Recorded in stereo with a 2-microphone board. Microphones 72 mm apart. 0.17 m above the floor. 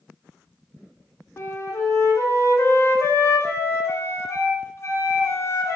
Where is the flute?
40° left (ahead or behind), 1.4 m.